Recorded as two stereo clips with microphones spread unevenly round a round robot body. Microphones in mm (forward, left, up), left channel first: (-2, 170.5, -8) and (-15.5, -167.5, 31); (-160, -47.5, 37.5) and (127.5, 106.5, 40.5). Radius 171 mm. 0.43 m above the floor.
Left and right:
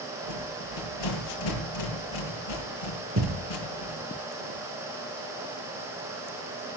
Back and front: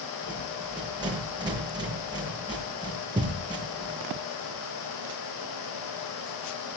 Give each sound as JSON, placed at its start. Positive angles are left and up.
{"t": 0.2, "sound": "a rattle", "azimuth_deg": 105, "distance_m": 8.0}
{"t": 3.2, "sound": "a thud", "azimuth_deg": -50, "distance_m": 3.0}